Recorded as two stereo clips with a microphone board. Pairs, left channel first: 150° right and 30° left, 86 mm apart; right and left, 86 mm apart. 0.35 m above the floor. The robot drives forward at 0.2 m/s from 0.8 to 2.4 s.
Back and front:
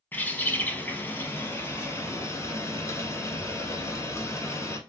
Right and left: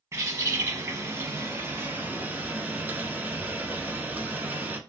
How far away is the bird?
About 0.6 m.